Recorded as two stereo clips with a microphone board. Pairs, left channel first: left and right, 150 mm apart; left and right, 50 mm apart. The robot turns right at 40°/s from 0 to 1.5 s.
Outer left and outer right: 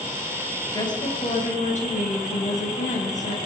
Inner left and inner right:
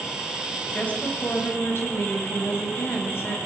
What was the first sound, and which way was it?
A woman speaking, 25° left.